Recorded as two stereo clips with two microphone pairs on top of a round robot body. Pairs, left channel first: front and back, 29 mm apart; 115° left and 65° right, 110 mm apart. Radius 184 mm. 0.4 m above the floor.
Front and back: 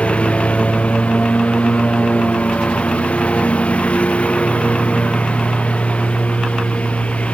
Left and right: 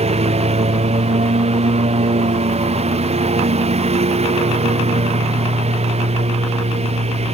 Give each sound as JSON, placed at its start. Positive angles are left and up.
{"t": 0.0, "sound": "a lawn mower", "azimuth_deg": -45}